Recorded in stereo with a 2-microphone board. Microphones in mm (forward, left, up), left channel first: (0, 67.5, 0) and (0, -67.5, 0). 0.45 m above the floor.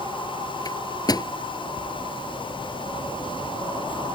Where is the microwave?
30° left (ahead or behind).